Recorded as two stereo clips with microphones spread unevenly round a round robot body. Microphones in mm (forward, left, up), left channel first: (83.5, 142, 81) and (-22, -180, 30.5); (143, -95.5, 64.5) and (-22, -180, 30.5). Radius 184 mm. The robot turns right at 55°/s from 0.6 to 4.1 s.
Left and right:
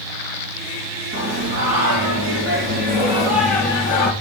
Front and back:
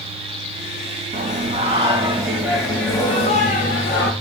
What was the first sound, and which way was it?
Singing, 150° right.